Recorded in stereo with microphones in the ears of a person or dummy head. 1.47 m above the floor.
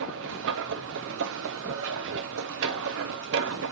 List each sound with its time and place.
0.0 s a machine running: 70° right (ahead or behind), 0.8 m